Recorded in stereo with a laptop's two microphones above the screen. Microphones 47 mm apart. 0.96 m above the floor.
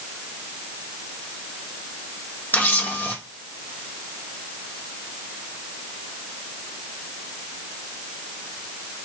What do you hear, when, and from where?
2.5 s a camera shutter: 50° left (ahead or behind), 1.4 m